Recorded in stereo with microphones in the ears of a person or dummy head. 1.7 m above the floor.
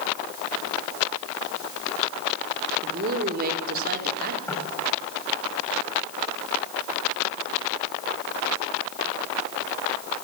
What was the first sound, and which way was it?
A woman speaking, 50° right (ahead or behind).